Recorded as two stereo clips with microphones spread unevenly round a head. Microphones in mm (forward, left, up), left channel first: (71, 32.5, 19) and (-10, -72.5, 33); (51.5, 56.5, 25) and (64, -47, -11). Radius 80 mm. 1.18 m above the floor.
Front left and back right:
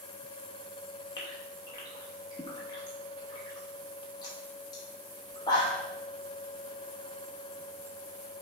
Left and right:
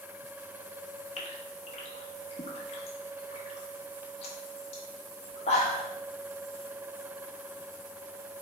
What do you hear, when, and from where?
1.2 s a gasp: 120° left, 0.9 m